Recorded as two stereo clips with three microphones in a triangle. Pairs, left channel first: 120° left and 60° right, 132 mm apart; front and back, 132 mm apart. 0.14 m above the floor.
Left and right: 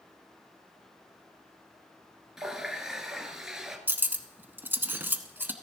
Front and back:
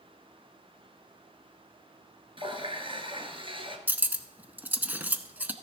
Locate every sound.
2.4 s a running tap: 145° right, 1.4 m
3.9 s cutlery clinking: 115° right, 0.7 m